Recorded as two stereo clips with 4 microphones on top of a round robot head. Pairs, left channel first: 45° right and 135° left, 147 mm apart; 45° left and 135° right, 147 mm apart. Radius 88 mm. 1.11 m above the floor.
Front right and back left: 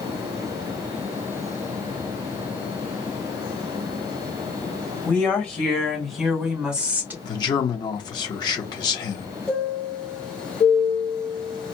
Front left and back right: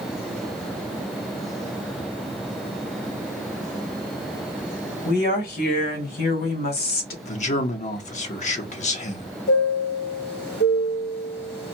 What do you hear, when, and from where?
5.0 s a woman speaking: 35° left, 3 m; by 7.1 s 55° left, 1.8 m
7.2 s a man speaking: 15° left, 1.1 m
9.5 s a chime: 40° left, 2 m